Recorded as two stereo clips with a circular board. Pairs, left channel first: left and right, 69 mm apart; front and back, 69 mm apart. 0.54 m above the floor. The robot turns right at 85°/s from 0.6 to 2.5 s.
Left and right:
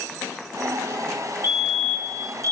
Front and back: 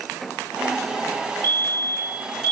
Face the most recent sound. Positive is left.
turn(degrees=40)